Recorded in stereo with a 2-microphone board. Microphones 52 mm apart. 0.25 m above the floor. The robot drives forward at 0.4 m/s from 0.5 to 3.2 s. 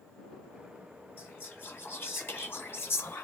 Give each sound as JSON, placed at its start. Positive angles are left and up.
{"t": 1.2, "sound": "whispering", "side_deg": 40, "distance_m": 1.4}